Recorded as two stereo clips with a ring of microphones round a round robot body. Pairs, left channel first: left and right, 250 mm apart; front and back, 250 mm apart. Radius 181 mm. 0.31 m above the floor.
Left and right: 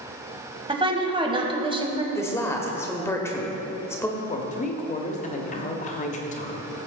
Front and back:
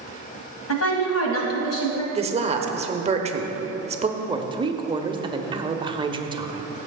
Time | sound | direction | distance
0.7 | a woman speaking | 20° right | 1.9 m
2.1 | a woman speaking | 155° left | 0.9 m
4.2 | a woman speaking | 120° left | 1.0 m